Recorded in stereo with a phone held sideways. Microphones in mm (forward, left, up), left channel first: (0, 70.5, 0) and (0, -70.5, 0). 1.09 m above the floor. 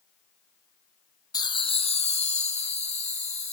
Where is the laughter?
25° left (ahead or behind), 0.5 m; by 3.5 s 45° left (ahead or behind), 1.2 m.